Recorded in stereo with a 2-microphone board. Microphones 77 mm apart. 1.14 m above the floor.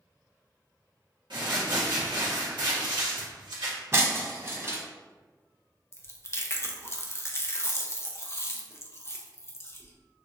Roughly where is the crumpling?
Right.